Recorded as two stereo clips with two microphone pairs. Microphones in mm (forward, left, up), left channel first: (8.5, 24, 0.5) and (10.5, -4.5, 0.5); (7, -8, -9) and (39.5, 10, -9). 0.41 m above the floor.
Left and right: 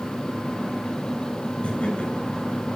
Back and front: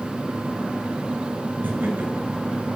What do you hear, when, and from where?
1.6 s laughter: 70° left, 6 m